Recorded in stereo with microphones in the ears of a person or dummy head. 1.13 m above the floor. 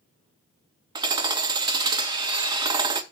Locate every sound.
0.9 s hammering: 20° right (ahead or behind), 0.8 m